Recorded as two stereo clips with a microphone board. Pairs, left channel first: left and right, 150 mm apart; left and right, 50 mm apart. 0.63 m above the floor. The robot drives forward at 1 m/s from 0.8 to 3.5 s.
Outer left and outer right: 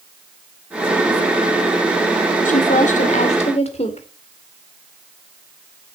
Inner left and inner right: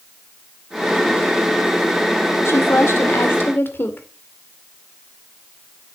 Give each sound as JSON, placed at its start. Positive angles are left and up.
{"t": 2.5, "sound": "a woman speaking", "side_deg": 60, "distance_m": 1.7}